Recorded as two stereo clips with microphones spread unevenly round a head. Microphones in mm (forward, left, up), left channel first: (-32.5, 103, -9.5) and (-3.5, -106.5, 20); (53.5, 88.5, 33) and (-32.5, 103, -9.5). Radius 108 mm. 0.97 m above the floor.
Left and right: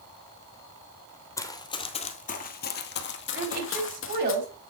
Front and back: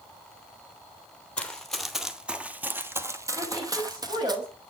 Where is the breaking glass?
No breaking glass in this recording.